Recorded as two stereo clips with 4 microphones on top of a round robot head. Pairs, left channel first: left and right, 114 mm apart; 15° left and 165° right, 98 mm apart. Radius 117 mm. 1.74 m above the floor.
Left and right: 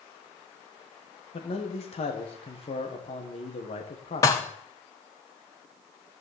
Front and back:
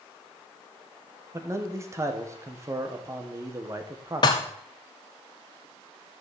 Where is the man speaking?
130° left, 1.9 m.